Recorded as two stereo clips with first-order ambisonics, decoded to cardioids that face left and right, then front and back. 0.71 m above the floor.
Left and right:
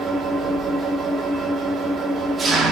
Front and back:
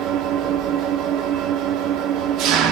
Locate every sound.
0.0 s an engine running: 155° right, 1.2 m